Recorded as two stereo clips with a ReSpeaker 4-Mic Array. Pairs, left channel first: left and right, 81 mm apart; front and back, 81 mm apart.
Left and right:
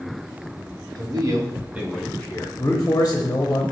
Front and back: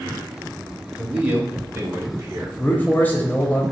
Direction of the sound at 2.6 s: 50° left.